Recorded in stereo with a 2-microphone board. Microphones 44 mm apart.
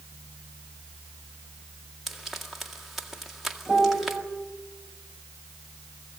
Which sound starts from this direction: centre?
Frying, at 2.1 s.